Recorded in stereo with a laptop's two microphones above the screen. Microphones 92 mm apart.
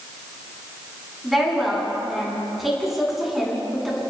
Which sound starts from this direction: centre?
A woman speaking, at 1.2 s.